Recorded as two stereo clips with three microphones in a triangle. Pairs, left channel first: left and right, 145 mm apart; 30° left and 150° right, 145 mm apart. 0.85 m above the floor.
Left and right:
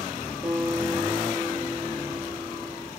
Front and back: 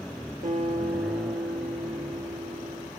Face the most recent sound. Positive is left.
turn(degrees=-175)